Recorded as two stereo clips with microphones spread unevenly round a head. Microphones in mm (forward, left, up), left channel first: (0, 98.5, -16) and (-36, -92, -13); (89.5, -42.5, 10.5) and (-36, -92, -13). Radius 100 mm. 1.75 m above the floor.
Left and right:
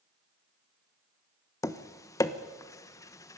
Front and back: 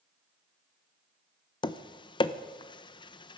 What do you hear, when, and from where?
1.6 s tapping: 10° left, 1.0 m